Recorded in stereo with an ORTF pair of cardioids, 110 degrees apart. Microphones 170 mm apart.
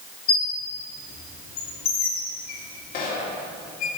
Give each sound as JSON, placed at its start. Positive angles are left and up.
{"t": 0.3, "sound": "a squeak", "azimuth_deg": 65, "distance_m": 1.7}